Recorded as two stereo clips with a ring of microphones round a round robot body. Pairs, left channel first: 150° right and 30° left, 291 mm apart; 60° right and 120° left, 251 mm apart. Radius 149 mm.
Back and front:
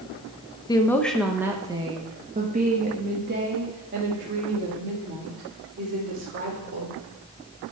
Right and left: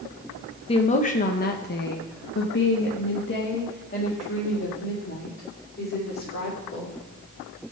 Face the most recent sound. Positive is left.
turn(degrees=-15)